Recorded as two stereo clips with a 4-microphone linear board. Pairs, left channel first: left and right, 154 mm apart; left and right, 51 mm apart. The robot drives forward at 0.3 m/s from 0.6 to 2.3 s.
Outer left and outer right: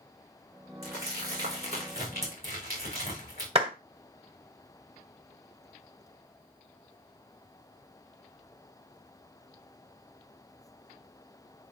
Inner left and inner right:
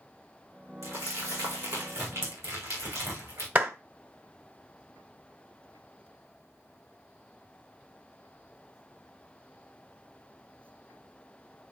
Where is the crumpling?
85° right, 6.5 m; by 3.5 s 90° right, 6.5 m.